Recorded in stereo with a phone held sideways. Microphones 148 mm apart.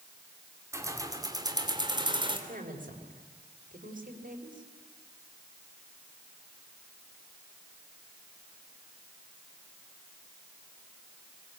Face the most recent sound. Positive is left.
turn(degrees=-70)  # may be behind; listen again after turning